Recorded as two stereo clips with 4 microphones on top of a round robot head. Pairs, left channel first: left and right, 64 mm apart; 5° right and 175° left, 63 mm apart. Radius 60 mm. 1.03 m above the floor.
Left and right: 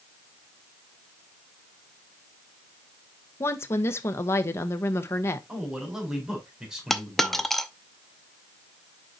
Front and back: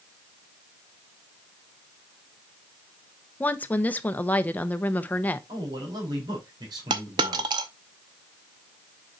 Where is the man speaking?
170° right, 4.5 m.